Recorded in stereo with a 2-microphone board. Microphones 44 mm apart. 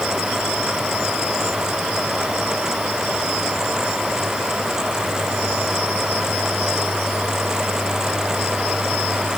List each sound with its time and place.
Only background noise.